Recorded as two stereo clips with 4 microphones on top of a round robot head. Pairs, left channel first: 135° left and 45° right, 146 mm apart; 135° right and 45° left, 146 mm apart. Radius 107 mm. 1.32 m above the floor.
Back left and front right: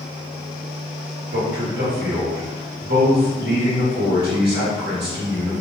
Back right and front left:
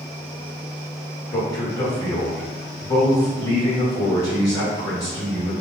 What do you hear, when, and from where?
1.3 s a man speaking: 65° right, 1.6 m